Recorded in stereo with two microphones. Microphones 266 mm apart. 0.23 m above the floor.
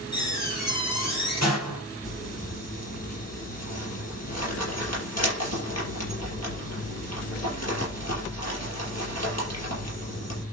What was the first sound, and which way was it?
A door slam, 80° left.